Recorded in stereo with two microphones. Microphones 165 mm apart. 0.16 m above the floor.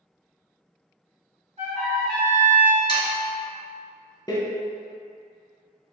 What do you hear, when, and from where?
1.6 s a trumpet: 40° right (ahead or behind), 2.0 m
2.9 s sawing: 30° left (ahead or behind), 1.9 m
4.3 s a door slam: 25° left (ahead or behind), 0.8 m